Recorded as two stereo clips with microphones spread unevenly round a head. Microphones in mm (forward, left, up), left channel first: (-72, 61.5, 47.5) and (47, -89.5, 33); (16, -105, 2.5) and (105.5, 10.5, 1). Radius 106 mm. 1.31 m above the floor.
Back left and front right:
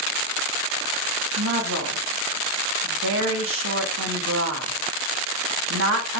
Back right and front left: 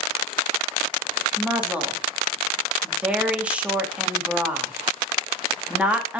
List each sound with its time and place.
1.4 s a woman speaking: 30° right, 2.5 m